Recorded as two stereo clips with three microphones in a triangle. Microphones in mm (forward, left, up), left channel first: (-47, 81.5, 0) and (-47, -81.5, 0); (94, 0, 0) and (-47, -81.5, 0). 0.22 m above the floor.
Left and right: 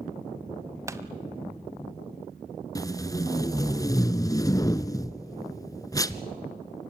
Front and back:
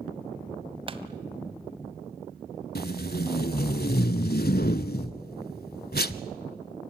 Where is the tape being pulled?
25° left, 0.7 m.